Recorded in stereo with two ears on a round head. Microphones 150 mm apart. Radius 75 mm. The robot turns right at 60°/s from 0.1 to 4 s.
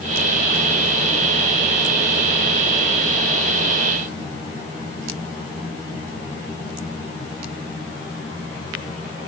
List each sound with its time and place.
Only background noise.